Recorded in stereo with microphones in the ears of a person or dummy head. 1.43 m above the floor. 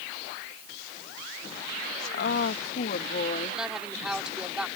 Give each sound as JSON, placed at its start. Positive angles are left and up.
{"t": 2.1, "sound": "a woman speaking", "side_deg": 55}
{"t": 3.6, "sound": "a woman speaking", "side_deg": -5}